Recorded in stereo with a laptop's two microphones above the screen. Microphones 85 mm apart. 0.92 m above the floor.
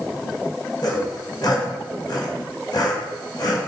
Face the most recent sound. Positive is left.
turn(degrees=55)  # may be behind; listen again after turning